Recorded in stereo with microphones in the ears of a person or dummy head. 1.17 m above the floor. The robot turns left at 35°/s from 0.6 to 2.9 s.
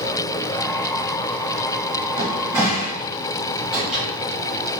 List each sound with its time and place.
2.2 s a cupboard door: 30° right (ahead or behind), 1.9 m; by 4.0 s 5° right (ahead or behind), 1.9 m